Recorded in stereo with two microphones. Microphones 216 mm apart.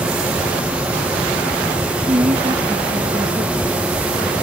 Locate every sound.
2.1 s a woman speaking: 25° right (ahead or behind)